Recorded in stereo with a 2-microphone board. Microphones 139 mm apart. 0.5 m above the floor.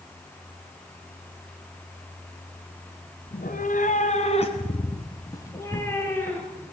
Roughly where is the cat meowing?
Left.